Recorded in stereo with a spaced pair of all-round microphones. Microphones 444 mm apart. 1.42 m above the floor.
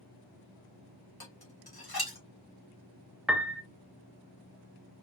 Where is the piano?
5° right (ahead or behind), 0.6 m.